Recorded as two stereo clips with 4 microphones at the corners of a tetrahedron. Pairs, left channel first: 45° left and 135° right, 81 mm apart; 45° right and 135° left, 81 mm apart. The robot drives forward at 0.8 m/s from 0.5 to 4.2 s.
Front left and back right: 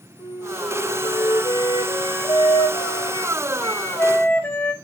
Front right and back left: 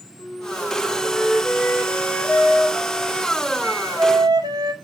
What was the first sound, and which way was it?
A flute, 15° left.